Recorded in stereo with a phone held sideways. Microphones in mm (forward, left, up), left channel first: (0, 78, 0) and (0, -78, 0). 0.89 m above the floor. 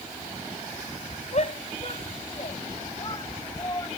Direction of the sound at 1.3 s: 50° left (ahead or behind).